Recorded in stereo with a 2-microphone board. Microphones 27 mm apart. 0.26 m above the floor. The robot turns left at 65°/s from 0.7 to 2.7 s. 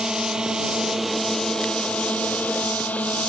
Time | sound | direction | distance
0.0 | a drone | 25° right (ahead or behind) | ?